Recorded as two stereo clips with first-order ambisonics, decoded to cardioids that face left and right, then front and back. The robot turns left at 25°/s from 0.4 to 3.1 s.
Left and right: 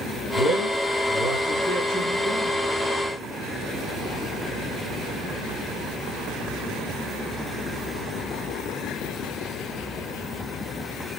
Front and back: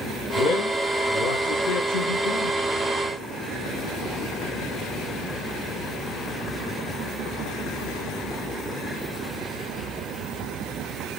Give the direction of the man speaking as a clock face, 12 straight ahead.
11 o'clock.